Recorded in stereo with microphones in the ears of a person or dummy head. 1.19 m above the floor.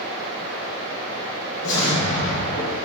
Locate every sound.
1.6 s an explosion: 45° left (ahead or behind), 1.0 m